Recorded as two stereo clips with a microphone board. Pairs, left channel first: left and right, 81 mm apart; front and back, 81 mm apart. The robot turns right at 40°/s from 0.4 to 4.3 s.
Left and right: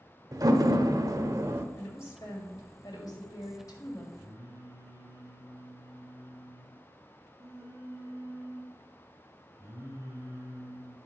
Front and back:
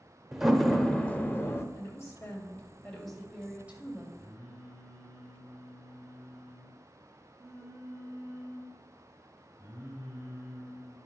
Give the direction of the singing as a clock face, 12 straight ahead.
5 o'clock.